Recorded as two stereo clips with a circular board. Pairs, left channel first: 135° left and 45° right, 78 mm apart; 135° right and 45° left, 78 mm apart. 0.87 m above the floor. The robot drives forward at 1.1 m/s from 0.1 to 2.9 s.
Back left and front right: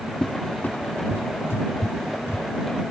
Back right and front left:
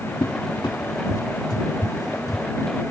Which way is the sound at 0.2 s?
150° right.